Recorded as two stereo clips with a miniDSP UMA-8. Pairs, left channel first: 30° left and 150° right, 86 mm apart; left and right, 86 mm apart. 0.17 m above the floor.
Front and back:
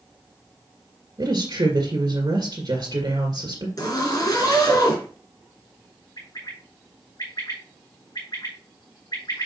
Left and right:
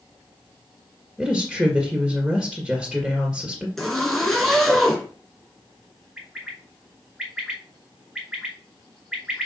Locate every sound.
1.2 s a woman speaking: 175° right, 2.0 m
3.8 s a zipper: 5° left, 2.5 m
6.2 s a bird: 5° right, 3.5 m